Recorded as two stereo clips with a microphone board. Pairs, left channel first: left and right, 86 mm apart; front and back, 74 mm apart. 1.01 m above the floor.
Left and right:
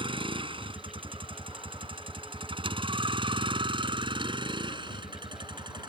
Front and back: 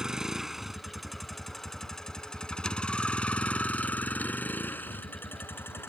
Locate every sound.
0.0 s a vehicle: 100° right; by 5.9 s 60° right